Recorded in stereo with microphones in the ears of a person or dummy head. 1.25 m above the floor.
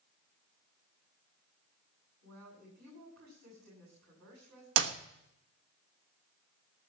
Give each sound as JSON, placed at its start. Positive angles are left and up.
{"t": 2.2, "sound": "a woman speaking", "side_deg": -60, "distance_m": 8.5}
{"t": 4.8, "sound": "a clap", "side_deg": -80, "distance_m": 1.1}